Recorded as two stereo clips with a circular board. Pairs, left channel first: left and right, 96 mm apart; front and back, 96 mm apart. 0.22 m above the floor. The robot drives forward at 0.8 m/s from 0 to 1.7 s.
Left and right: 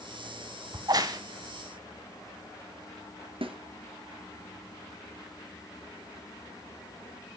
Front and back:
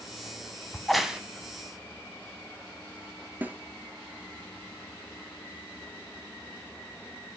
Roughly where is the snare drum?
Right.